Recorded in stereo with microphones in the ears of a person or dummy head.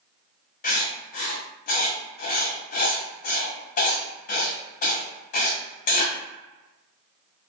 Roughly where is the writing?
Left.